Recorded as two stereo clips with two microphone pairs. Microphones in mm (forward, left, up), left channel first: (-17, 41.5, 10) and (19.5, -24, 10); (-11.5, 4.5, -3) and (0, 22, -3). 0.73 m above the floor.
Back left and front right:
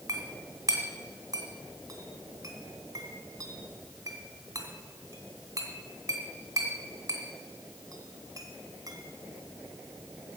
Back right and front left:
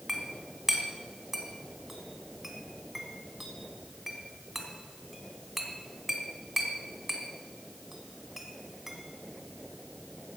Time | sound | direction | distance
0.1 | a clink | 20° right | 2.5 m